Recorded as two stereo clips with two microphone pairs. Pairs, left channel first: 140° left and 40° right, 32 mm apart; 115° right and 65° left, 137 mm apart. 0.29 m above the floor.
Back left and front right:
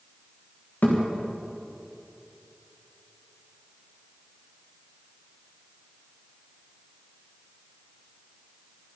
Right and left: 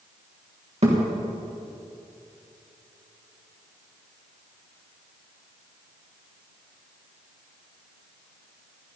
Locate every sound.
0.8 s a thud: 105° left, 5 m